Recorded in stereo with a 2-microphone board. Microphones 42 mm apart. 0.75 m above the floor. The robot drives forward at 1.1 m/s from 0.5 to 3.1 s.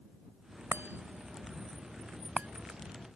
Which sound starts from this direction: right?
A chime, at 0.7 s.